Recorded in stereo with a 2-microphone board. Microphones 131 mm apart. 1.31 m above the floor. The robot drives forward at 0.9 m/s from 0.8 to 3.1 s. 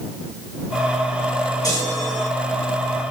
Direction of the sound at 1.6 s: 30° left (ahead or behind).